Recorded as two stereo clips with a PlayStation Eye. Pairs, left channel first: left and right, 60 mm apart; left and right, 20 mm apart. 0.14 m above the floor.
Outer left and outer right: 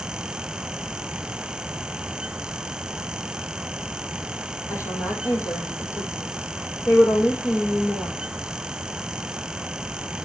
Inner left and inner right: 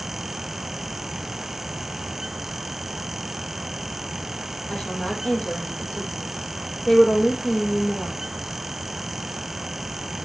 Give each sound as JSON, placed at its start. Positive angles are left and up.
{"t": 4.7, "sound": "a woman speaking", "side_deg": 75, "distance_m": 5.5}